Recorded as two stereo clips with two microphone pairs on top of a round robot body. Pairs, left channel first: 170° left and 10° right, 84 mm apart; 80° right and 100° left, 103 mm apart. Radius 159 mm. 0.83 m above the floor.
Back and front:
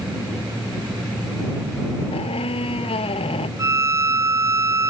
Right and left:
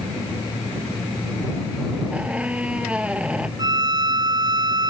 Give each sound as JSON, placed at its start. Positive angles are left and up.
{"t": 2.1, "sound": "a squeak", "azimuth_deg": 180}
{"t": 3.6, "sound": "a violin", "azimuth_deg": 45}